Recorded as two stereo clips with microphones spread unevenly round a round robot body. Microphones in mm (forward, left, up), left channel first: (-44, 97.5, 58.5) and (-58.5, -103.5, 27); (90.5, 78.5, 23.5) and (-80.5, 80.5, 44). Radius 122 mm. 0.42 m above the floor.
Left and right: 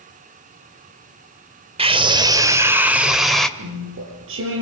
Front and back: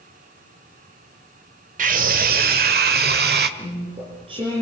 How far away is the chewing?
About 7 m.